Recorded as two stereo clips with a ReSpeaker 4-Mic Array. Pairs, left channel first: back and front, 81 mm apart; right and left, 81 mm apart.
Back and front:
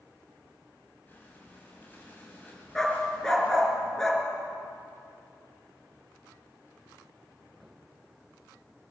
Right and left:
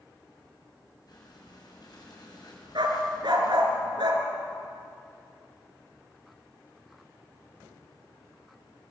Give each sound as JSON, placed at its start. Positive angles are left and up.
{"t": 1.1, "sound": "breathing", "azimuth_deg": -115, "distance_m": 6.0}
{"t": 2.8, "sound": "a dog barking", "azimuth_deg": 95, "distance_m": 4.0}